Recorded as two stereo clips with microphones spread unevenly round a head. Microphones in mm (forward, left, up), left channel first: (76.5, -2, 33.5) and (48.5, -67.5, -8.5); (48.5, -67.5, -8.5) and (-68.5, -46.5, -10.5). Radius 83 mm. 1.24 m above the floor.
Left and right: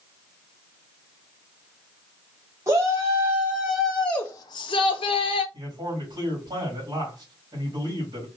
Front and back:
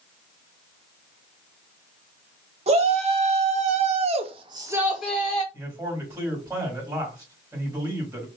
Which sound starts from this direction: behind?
A shout, at 2.7 s.